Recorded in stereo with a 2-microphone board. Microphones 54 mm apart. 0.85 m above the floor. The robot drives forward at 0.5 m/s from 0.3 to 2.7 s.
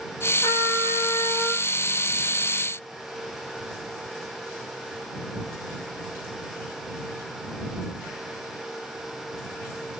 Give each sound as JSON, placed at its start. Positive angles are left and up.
{"t": 0.4, "sound": "a trumpet", "side_deg": 80, "distance_m": 8.0}